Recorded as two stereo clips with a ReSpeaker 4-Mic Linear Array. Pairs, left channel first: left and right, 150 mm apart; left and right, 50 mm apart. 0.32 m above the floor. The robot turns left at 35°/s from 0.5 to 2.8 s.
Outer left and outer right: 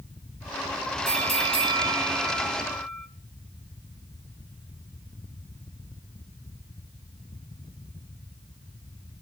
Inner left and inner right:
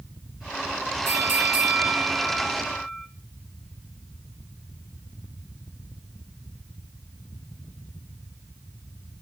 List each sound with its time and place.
1.1 s a bell: 120° right, 2.5 m; by 3.1 s straight behind, 2.5 m